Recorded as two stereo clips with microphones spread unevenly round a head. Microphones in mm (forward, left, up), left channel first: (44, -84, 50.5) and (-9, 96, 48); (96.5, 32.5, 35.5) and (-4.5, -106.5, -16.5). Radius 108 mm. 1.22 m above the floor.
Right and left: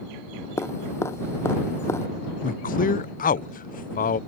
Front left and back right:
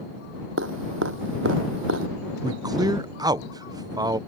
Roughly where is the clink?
No clink in this recording.